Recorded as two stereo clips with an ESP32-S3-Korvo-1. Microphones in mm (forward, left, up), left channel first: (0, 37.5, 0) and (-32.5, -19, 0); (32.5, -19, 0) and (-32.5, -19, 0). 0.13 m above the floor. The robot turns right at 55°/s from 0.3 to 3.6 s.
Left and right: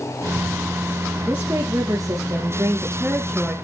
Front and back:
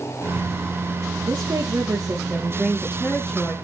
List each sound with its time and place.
1.3 s a woman speaking: 175° right, 2.5 m; by 3.5 s 50° right, 2.5 m